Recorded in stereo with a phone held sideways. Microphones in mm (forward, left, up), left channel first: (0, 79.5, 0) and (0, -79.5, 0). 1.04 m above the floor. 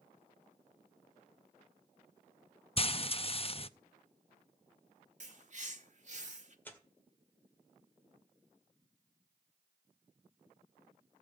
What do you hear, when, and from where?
2.8 s frying: 40° left (ahead or behind), 0.5 m
5.2 s a bird: 50° right (ahead or behind), 1.5 m
6.7 s tearing paper: 10° left (ahead or behind), 1.9 m